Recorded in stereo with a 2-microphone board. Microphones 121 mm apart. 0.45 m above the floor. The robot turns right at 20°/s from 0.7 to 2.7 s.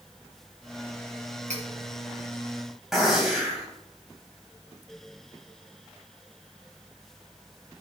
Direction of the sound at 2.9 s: 5° right (ahead or behind).